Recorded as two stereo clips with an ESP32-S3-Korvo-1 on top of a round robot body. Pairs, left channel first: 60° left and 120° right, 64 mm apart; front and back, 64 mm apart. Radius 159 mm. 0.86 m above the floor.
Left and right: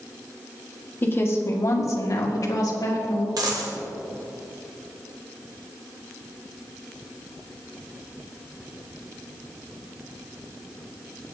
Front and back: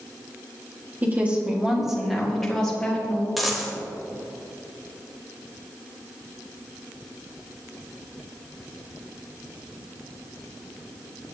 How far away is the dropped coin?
About 1.1 m.